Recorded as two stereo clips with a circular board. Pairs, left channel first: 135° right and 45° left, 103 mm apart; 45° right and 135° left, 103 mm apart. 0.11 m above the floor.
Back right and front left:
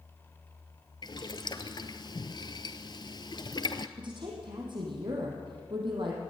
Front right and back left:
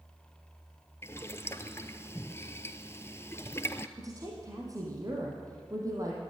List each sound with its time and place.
1.0 s boiling: 105° right, 1.0 m
4.0 s a woman speaking: 80° left, 4 m